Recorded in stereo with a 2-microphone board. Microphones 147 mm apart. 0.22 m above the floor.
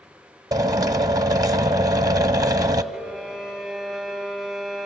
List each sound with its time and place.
0.5 s a drill: 25° right (ahead or behind), 0.8 m
2.9 s a violin: centre (ahead or behind), 6 m